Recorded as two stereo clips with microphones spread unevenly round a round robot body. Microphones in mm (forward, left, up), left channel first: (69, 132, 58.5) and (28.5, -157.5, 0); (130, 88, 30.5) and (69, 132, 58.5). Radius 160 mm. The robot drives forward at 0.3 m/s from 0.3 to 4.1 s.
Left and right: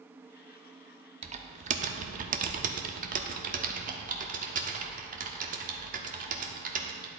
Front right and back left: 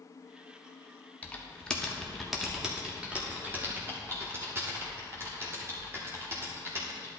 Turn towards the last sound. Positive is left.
turn(degrees=-140)